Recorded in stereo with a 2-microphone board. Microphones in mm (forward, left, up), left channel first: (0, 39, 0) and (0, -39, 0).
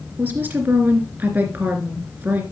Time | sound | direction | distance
0.2 | a woman speaking | 25° right (ahead or behind) | 2.5 m